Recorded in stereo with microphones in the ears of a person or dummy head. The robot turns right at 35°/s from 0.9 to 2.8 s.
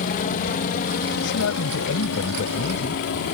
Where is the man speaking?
85° left; by 3.0 s 140° left.